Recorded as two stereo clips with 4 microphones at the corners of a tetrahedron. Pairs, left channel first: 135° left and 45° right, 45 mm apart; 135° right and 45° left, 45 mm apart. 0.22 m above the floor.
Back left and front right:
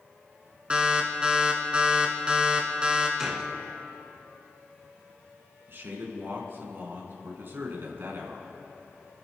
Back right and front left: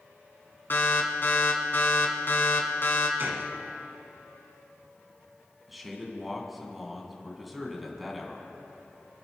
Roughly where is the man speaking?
Ahead right.